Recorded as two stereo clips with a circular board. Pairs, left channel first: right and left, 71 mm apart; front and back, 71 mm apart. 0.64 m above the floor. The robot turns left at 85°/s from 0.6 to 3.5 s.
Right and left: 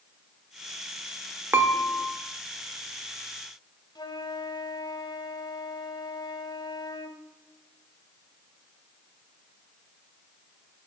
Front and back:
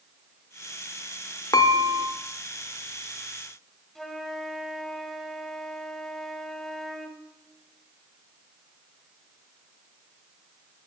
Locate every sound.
1.5 s dishes clattering: 35° left, 1.1 m; by 2.1 s 10° right, 1.1 m
4.0 s a flute: 90° right, 1.2 m